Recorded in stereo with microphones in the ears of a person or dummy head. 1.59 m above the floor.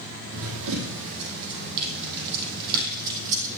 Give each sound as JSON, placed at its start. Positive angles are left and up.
{"t": 0.3, "sound": "running footsteps", "side_deg": -70, "distance_m": 4.0}